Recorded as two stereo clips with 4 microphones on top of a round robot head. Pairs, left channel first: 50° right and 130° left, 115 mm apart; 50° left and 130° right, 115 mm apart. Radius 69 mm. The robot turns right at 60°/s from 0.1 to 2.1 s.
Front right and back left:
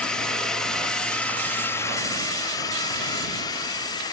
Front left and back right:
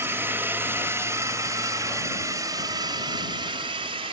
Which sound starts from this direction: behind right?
A drone, at 0.0 s.